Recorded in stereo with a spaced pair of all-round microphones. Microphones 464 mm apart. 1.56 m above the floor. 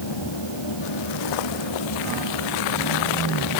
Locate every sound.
0.0 s a fan: 70° left (ahead or behind)